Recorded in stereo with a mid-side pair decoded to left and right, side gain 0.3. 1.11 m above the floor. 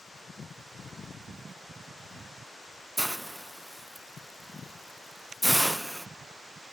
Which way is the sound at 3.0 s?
15° right.